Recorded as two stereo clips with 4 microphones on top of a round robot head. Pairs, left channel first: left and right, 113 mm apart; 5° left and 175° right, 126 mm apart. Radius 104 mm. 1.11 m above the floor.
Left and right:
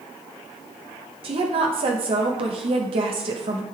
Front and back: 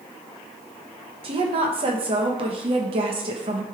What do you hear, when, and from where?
1.2 s a woman speaking: 130° right, 1.4 m